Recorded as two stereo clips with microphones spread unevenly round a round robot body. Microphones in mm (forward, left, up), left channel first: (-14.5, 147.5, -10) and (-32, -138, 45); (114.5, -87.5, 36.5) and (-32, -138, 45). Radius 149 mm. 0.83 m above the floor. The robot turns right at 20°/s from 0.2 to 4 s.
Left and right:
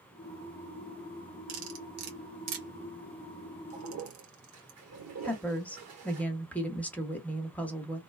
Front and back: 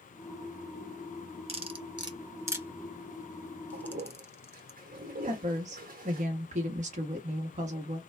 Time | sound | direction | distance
1.5 | cutlery clinking | 105° right | 1.2 m
3.7 | a toilet flushing | 135° right | 1.3 m
5.2 | a woman speaking | 160° left | 1.0 m